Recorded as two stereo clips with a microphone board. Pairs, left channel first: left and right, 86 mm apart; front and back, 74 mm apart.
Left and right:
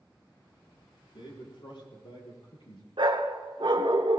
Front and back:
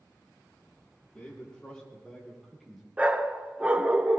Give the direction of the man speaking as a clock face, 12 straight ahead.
10 o'clock.